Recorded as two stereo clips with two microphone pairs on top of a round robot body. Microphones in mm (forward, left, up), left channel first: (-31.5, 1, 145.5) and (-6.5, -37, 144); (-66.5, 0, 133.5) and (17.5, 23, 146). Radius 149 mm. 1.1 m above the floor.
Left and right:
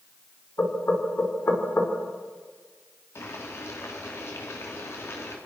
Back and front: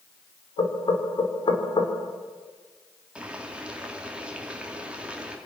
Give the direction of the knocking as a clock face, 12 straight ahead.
6 o'clock.